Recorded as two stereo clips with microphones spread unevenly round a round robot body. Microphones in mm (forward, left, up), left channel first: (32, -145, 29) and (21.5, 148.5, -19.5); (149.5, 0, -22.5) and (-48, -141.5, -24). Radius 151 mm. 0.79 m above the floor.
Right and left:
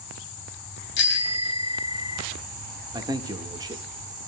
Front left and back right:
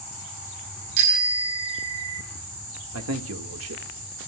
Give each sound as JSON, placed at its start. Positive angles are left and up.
{"t": 1.0, "sound": "a bicycle bell", "azimuth_deg": -145, "distance_m": 3.5}
{"t": 2.9, "sound": "a man speaking", "azimuth_deg": 170, "distance_m": 1.5}